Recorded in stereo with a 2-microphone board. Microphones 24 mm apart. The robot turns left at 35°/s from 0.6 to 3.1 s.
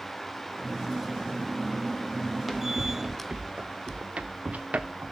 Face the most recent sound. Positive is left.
turn(degrees=-65)  # may be behind; listen again after turning